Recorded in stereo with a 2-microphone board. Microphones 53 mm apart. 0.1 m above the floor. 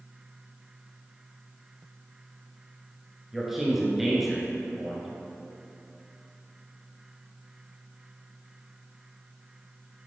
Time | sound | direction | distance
3.3 | a man speaking | 5° right (ahead or behind) | 1.5 m